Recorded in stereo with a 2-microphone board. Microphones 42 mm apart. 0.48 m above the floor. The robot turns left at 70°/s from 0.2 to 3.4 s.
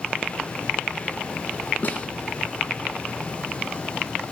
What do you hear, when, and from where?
1.8 s a snare drum: 40° left (ahead or behind), 4 m; by 2.1 s 20° left (ahead or behind), 4 m